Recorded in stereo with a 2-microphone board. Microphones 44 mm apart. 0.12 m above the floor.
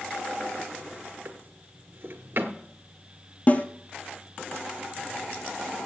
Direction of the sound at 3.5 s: 40° left (ahead or behind).